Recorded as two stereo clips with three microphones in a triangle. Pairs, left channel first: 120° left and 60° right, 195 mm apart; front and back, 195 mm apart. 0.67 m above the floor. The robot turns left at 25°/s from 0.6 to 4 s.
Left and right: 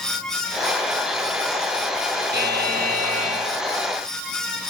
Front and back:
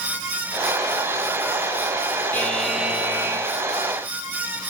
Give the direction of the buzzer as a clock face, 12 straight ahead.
3 o'clock.